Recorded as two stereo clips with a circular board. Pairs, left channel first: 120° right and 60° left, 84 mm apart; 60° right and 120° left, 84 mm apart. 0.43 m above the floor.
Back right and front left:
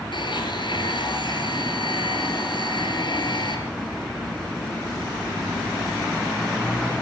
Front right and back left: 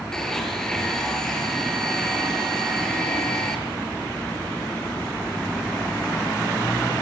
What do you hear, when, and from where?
0.1 s a blender: 145° right, 6 m